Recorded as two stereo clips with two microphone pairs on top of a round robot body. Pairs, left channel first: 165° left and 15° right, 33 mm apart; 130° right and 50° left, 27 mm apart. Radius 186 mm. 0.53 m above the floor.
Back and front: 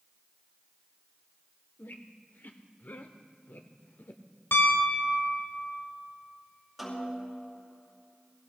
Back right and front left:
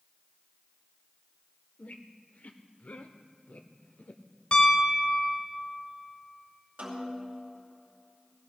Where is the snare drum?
75° left, 6 m.